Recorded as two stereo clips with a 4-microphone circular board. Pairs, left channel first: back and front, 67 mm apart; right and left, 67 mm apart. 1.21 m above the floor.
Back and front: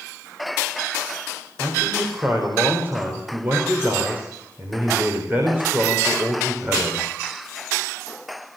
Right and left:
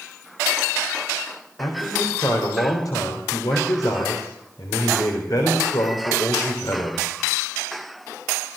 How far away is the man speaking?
About 4 m.